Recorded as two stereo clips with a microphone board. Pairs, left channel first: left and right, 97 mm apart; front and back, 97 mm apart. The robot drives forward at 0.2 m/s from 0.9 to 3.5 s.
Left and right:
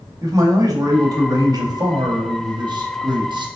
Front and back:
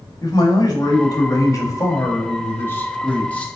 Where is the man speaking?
45° right, 1.1 m; by 3.5 s 75° right, 0.9 m.